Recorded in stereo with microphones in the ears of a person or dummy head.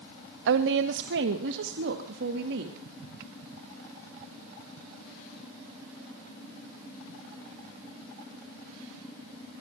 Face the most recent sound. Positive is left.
turn(degrees=-65)  # may be behind; listen again after turning